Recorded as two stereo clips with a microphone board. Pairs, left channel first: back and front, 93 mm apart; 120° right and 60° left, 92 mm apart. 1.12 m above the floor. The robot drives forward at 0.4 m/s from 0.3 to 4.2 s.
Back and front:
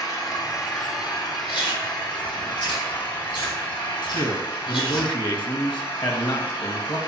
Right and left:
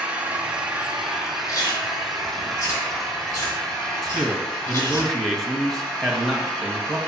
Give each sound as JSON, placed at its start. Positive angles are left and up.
{"t": 0.0, "sound": "an engine running", "azimuth_deg": 135, "distance_m": 1.5}
{"t": 1.5, "sound": "chewing", "azimuth_deg": -165, "distance_m": 2.0}
{"t": 4.0, "sound": "a man speaking", "azimuth_deg": 150, "distance_m": 1.3}